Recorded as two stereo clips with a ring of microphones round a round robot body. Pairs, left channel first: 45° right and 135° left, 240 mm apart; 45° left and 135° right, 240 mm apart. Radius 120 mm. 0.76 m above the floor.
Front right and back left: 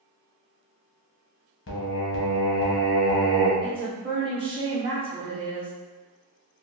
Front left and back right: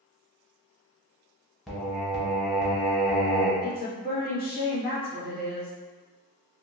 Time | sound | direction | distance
1.7 | singing | 45° right | 0.8 m
3.6 | a woman speaking | 75° left | 1.3 m